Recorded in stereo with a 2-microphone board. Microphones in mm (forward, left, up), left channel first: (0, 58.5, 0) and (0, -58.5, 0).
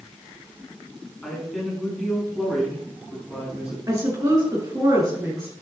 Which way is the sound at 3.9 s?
30° right (ahead or behind).